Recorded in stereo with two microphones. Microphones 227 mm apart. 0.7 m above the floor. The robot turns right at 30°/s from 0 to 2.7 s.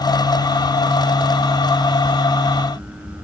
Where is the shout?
No shout in this recording.